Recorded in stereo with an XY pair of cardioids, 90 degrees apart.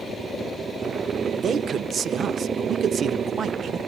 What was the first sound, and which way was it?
A man speaking, 60° right.